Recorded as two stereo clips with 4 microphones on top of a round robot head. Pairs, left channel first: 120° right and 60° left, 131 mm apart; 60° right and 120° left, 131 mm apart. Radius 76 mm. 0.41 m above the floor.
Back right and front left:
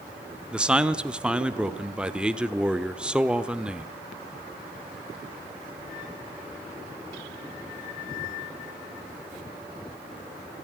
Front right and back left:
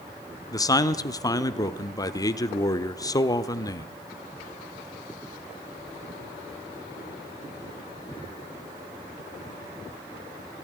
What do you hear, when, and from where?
0.5 s a man speaking: 20° right, 1.1 m